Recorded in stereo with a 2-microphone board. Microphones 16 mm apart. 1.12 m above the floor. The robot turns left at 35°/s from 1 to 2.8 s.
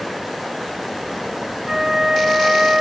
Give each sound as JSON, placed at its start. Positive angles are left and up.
{"t": 1.7, "sound": "a flute", "azimuth_deg": -35, "distance_m": 0.6}